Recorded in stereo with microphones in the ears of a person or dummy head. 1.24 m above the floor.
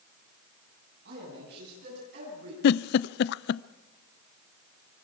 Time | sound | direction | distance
1.1 | a man speaking | 65° right (ahead or behind) | 9 m
2.6 | a giggle | 60° left (ahead or behind) | 0.5 m